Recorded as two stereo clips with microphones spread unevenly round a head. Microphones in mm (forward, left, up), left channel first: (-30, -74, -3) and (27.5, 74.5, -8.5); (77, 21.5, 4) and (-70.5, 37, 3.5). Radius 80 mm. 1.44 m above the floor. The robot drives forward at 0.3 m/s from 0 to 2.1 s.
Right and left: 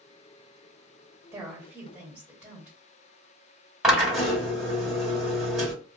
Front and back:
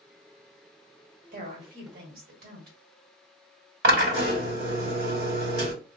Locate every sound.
1.3 s a woman speaking: 145° left, 1.3 m; by 2.8 s 150° left, 1.5 m
3.8 s a drill: 155° left, 1.6 m